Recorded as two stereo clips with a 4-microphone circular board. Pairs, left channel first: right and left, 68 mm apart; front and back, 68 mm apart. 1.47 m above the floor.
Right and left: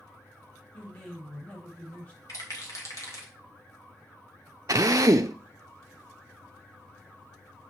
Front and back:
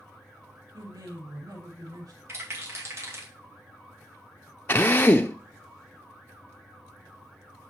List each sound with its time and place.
0.7 s a man speaking: 160° right, 2.5 m
2.3 s a rattle: 130° right, 2 m
4.7 s a drill: 55° left, 0.5 m